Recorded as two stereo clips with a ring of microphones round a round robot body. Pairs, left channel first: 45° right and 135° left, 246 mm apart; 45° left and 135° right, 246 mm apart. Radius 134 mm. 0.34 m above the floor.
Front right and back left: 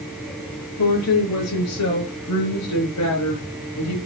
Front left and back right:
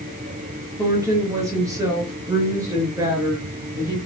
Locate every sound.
0.8 s a woman speaking: 60° right, 6 m